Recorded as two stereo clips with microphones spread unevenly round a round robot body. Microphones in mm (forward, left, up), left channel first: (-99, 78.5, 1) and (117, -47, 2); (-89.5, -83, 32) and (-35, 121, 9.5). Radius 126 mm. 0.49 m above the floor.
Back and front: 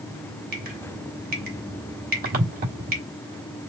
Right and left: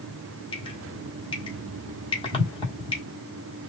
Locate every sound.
0.5 s dripping: 45° right, 1.5 m